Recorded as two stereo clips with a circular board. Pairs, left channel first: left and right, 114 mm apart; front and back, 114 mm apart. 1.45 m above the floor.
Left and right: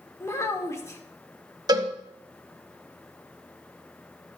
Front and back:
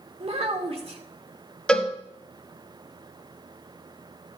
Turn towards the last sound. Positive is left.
turn(degrees=-75)